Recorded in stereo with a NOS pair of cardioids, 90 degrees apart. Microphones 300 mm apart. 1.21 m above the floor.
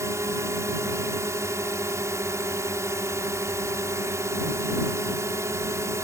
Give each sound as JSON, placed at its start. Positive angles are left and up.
{"t": 0.0, "sound": "a drone", "azimuth_deg": -10}